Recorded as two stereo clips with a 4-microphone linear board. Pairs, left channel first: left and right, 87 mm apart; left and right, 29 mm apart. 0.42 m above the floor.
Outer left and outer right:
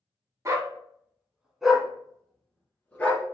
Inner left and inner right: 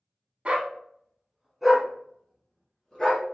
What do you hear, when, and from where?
0.5 s a dog barking: 35° right (ahead or behind), 0.9 m; by 3.3 s 20° left (ahead or behind), 1.8 m